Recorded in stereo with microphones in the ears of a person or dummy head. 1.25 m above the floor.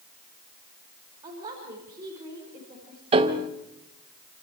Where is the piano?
35° right (ahead or behind), 1.4 m.